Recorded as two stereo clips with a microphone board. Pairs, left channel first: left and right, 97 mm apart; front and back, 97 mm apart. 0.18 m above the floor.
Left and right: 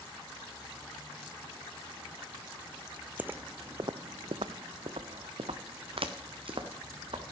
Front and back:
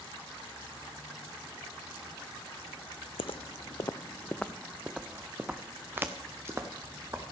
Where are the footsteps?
15° right, 0.6 m; by 7.2 s 120° right, 2.0 m.